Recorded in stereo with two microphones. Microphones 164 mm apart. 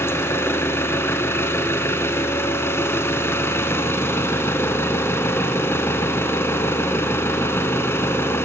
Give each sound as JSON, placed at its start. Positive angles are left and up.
{"t": 0.0, "sound": "an engine running", "side_deg": 15, "distance_m": 1.5}